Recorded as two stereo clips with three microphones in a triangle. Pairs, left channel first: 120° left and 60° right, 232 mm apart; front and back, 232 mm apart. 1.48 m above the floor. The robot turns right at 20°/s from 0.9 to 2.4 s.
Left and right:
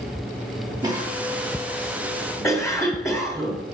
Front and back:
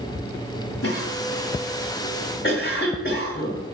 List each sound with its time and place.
0.8 s a cough: 15° left, 3.5 m; by 3.6 s 45° left, 3.5 m